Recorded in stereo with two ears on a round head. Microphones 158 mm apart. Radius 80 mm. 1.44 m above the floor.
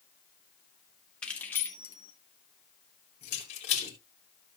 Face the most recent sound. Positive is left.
turn(degrees=40)  # may be behind; listen again after turning